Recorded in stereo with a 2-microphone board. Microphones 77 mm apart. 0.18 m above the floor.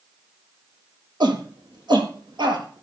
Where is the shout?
75° right (ahead or behind), 3.5 m; by 2.8 s 70° right (ahead or behind), 4 m.